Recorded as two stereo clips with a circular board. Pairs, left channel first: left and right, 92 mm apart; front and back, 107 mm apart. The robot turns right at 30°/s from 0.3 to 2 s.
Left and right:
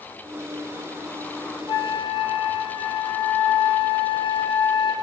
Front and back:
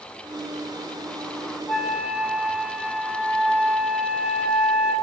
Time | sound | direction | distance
1.7 | a flute | 90° left | 0.7 m